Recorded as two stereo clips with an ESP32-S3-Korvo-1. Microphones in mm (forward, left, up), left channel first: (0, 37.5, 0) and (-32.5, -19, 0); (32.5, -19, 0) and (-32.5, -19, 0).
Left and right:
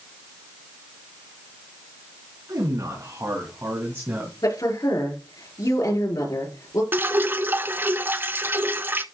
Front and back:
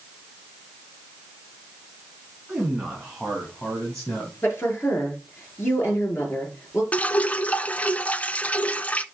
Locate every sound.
2.5 s a man speaking: 100° right, 4 m; by 4.3 s 65° right, 2.5 m
4.4 s a woman speaking: 55° left, 5.5 m
6.9 s dripping: 65° right, 0.5 m